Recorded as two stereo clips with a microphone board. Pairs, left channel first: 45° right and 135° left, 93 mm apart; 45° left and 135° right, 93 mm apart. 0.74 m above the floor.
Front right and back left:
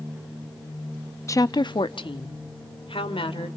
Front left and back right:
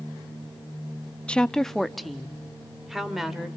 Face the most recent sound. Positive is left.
turn(degrees=-50)